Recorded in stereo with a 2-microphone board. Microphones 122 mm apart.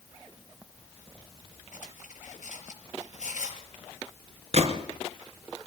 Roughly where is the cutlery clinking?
Left.